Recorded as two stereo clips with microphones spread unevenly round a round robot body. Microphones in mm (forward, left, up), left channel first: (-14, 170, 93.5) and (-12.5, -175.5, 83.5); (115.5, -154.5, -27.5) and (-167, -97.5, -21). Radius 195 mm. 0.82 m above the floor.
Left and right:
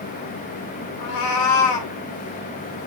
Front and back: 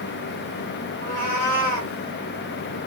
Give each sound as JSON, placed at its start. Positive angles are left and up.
{"t": 1.0, "sound": "a cat meowing", "azimuth_deg": 60, "distance_m": 1.0}